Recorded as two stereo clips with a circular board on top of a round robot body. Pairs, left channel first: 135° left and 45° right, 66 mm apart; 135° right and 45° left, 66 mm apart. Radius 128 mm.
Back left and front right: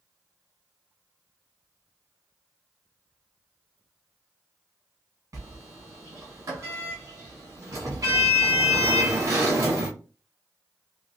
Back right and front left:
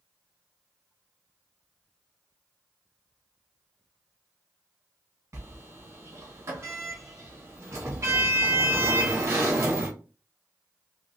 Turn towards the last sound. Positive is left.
turn(degrees=-5)